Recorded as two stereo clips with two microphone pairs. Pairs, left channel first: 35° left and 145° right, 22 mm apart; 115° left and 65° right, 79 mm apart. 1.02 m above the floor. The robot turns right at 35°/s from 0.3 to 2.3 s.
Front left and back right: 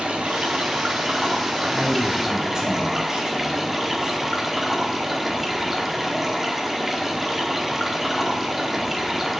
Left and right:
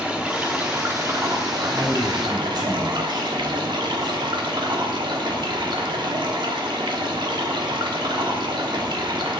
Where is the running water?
140° right, 1.4 m; by 9.4 s 70° right, 1.4 m.